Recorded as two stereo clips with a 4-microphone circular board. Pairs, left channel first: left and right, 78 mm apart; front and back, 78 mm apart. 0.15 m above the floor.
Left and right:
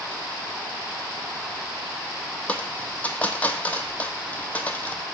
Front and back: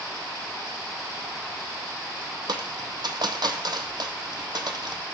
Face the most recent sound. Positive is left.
turn(degrees=160)